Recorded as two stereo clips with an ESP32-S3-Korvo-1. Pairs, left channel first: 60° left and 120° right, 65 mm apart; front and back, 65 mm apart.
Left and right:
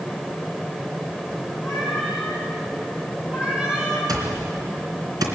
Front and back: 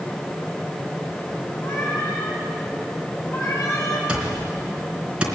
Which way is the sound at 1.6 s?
40° right.